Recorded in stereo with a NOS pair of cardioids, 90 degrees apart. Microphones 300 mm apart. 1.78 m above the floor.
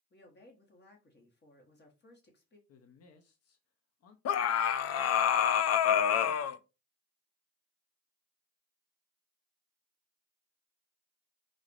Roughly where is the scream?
Ahead left.